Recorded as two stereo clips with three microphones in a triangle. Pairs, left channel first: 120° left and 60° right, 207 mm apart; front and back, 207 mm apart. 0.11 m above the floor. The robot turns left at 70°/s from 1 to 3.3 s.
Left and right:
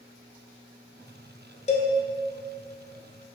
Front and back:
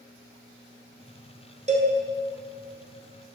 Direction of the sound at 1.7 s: 150° left.